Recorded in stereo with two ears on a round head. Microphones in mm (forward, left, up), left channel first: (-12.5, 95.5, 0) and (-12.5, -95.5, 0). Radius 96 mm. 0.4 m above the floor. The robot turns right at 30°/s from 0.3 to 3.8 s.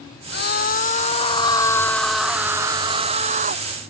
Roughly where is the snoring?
I don't hear snoring.